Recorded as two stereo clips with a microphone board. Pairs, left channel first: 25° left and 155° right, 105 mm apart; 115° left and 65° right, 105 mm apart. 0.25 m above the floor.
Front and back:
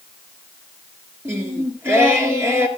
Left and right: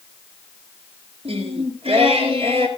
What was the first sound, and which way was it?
Singing, 90° right.